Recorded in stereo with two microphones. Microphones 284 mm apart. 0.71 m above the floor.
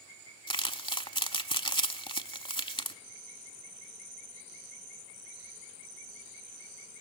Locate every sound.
0.5 s crumpling: 20° left (ahead or behind), 0.8 m